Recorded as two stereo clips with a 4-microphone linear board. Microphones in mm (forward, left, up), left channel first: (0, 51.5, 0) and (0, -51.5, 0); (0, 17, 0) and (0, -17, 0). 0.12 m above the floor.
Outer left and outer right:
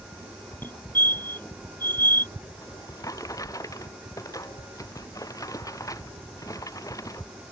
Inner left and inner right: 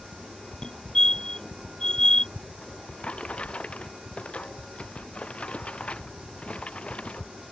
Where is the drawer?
35° left (ahead or behind).